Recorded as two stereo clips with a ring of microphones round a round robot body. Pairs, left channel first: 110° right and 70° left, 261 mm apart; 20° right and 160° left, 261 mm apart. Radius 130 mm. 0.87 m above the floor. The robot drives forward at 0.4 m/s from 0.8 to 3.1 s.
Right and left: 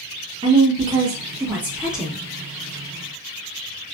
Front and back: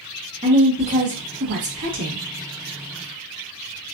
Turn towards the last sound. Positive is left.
turn(degrees=165)